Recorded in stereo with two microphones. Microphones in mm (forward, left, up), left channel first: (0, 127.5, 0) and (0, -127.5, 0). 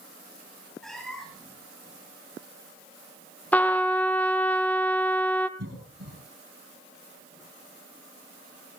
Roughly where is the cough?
Right.